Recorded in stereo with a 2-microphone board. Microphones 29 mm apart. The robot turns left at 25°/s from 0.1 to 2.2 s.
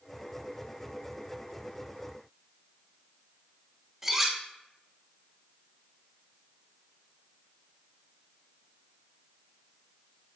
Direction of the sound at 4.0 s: 10° right (ahead or behind).